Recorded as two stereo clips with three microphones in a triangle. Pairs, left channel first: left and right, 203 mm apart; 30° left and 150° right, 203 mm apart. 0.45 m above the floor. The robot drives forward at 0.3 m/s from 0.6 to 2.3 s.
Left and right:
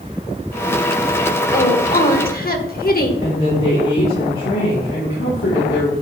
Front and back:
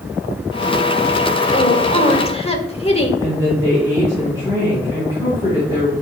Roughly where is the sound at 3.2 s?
Left.